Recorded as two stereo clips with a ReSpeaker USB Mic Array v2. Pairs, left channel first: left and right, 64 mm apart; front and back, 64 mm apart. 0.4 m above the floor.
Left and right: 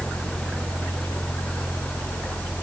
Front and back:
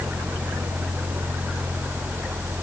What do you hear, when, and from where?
Only background noise.